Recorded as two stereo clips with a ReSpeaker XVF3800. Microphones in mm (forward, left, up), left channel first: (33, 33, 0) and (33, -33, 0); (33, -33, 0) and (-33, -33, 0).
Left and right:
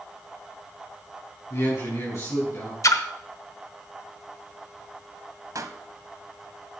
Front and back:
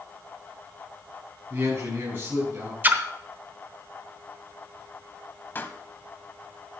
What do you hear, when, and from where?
1.5 s a man speaking: 125° left, 6 m
2.8 s a splash: 120° left, 1.0 m
5.5 s a pop: 60° right, 1.1 m